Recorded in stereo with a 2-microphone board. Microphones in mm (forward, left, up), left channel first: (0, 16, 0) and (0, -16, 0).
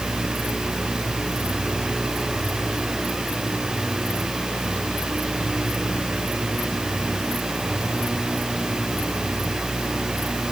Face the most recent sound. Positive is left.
No sound to turn to.